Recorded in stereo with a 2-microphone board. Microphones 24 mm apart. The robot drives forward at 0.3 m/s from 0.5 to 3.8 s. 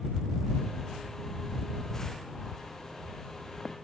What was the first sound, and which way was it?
Only background noise.